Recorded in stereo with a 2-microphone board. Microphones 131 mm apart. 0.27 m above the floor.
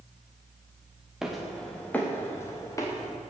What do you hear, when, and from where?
1.2 s footsteps: 5° right (ahead or behind), 2.5 m; by 3.1 s 30° left (ahead or behind), 4 m